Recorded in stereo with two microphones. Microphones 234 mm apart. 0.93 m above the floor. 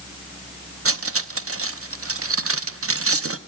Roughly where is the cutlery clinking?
Right.